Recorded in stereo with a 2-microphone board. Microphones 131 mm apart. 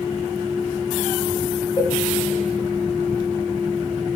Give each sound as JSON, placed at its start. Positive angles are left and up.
{"t": 1.8, "sound": "a cowbell", "side_deg": 30, "distance_m": 1.6}